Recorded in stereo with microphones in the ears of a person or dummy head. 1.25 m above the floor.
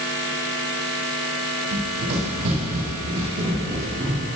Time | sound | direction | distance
1.7 | running footsteps | 60° right (ahead or behind) | 3 m